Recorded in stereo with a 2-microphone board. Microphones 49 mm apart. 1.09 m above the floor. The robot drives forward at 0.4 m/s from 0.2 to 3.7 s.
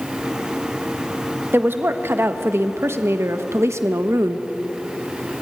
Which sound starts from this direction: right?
A woman speaking, at 1.5 s.